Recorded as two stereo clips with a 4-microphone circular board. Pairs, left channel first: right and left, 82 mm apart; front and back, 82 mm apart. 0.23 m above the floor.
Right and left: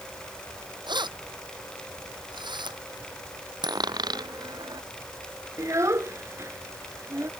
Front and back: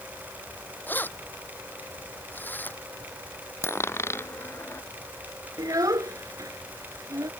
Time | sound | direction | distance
0.9 | keys jangling | 65° left | ?
3.6 | a dropped coin | 60° left | ?
5.6 | a child speaking | 140° left | ?